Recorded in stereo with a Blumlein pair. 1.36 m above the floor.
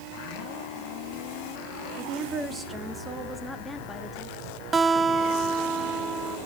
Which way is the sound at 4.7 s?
15° right.